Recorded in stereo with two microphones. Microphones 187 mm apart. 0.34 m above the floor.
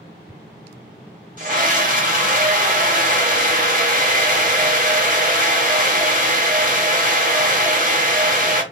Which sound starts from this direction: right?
A scream, at 1.4 s.